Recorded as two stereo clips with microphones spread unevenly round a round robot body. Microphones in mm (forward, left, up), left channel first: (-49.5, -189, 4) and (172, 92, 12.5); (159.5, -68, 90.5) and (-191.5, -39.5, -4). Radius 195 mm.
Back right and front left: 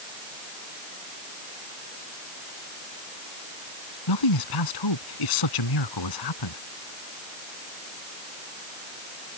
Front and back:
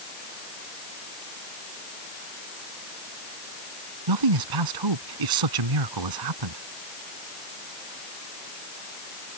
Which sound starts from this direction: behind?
A man speaking, at 4.1 s.